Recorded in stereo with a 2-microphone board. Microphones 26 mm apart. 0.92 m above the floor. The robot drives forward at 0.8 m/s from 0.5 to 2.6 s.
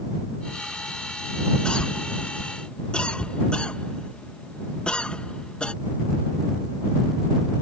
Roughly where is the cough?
Left.